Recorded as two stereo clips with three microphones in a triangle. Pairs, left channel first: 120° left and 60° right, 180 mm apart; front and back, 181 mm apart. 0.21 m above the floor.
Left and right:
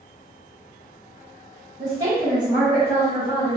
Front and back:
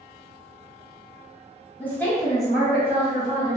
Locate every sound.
1.8 s a woman speaking: 65° right, 1.1 m; by 3.6 s 125° left, 1.3 m